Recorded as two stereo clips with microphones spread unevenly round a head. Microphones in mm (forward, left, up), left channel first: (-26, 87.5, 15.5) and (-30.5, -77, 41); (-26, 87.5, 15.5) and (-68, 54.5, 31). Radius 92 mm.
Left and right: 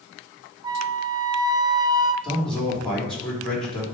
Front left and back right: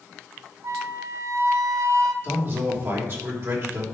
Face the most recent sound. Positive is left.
turn(degrees=175)